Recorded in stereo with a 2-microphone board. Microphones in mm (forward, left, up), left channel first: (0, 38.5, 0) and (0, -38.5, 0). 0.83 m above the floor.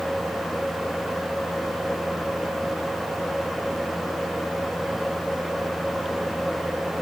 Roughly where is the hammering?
I don't hear hammering.